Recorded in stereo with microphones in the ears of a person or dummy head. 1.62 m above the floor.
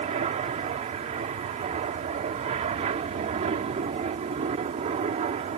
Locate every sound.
0.0 s an aircraft: 35° right (ahead or behind)